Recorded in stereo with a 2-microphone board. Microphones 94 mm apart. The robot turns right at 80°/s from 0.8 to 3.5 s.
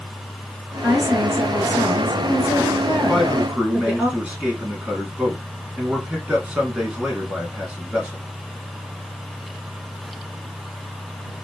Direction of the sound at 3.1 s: Centre (ahead or behind).